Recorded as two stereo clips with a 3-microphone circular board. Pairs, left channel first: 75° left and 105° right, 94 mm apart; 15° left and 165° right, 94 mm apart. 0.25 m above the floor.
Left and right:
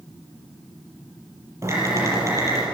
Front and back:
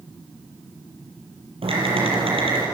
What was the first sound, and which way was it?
Typing on a keyboard, 165° right.